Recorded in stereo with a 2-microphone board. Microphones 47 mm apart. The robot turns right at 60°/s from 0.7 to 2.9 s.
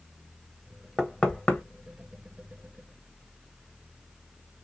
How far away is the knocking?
About 0.8 m.